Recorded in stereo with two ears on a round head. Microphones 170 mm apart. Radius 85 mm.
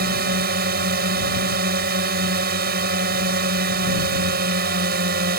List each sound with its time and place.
0.0 s a drone: 55° right (ahead or behind)